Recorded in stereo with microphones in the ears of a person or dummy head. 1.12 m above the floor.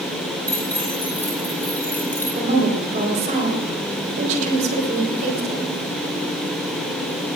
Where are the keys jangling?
5° left (ahead or behind), 5.5 m; by 2.2 s 10° left (ahead or behind), 4 m.